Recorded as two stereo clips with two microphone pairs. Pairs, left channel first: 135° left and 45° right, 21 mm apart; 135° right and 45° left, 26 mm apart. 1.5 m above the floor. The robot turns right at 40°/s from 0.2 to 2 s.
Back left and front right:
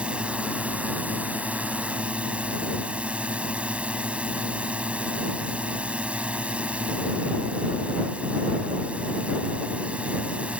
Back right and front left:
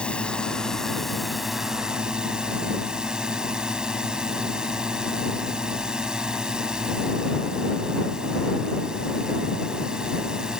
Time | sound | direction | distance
0.0 | a drone | 85° right | ?